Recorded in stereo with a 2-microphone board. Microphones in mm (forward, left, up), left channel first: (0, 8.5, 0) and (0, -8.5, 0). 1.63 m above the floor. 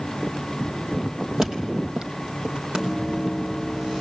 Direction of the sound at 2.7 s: 65° right (ahead or behind).